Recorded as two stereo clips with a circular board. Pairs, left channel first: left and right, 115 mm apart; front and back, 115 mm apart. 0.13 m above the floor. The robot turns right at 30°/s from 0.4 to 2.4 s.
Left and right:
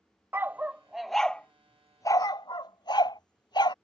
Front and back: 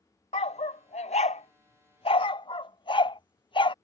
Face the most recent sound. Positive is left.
turn(degrees=40)